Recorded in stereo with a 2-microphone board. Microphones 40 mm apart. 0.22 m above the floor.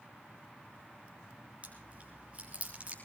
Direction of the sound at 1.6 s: 35° right (ahead or behind).